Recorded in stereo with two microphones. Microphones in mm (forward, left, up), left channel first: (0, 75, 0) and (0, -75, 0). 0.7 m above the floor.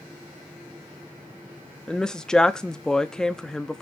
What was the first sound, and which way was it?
A woman speaking, 5° left (ahead or behind).